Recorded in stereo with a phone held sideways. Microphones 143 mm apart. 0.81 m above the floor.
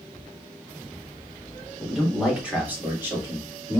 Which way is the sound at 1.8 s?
Centre (ahead or behind).